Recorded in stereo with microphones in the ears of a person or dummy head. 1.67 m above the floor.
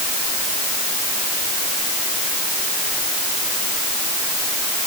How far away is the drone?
I don't hear a drone.